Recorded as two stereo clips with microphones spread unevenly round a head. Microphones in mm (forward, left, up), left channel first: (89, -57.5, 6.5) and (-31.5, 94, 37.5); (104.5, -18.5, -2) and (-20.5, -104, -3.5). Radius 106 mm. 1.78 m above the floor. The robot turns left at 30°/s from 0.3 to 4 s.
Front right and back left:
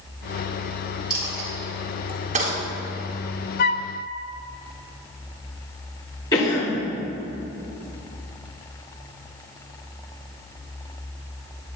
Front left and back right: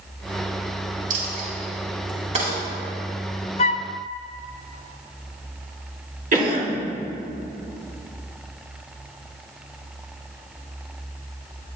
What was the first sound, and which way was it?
A dropped coin, 150° right.